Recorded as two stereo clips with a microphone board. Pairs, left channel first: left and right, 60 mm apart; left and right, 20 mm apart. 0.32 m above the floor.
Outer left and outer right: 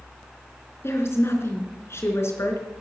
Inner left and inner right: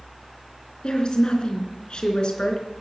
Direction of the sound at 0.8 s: 45° left (ahead or behind).